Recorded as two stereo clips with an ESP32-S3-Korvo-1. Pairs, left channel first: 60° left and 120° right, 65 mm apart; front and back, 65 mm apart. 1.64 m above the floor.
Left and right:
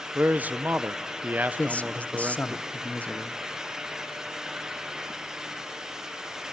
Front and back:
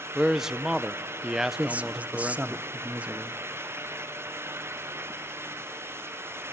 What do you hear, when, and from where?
0.1 s a man speaking: 105° right, 0.6 m
1.6 s a man speaking: 120° left, 0.7 m